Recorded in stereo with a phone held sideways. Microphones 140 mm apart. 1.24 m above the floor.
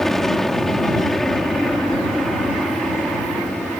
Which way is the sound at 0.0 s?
5° left (ahead or behind).